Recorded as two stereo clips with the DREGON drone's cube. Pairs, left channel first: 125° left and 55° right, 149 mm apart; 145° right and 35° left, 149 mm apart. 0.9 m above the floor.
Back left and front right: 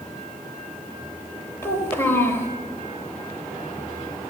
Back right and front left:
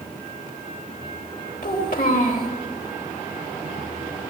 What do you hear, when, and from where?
1.6 s a child speaking: 160° right, 3 m